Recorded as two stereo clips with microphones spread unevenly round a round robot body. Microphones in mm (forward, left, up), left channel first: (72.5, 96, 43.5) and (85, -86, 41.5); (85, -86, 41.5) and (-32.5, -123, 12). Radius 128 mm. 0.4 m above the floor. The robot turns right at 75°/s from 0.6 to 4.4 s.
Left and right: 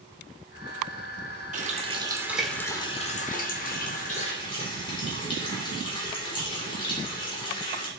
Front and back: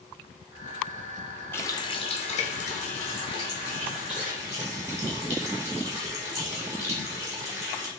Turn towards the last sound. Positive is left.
turn(degrees=150)